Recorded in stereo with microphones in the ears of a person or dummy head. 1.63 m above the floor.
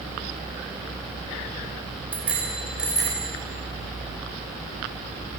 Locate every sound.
2.1 s a bicycle bell: 5° right (ahead or behind), 5 m